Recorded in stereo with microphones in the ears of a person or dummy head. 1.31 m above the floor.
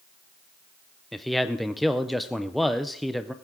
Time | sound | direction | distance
1.1 | a man speaking | centre (ahead or behind) | 0.5 m